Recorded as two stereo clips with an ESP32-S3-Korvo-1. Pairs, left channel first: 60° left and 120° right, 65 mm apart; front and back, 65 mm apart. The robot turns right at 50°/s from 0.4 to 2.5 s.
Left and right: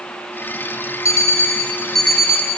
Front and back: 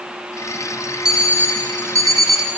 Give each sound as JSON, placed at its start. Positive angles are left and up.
{"t": 1.1, "sound": "an alarm clock", "azimuth_deg": 100, "distance_m": 3.5}